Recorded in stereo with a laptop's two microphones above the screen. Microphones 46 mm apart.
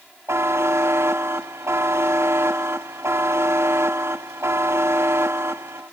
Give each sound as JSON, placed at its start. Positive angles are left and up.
{"t": 0.3, "sound": "a buzzer", "side_deg": -85, "distance_m": 1.1}